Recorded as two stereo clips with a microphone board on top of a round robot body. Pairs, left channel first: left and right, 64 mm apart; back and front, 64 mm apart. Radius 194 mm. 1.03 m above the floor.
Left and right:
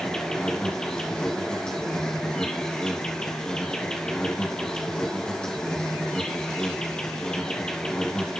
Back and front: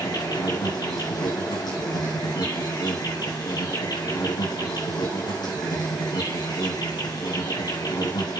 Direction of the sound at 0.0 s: 170° left.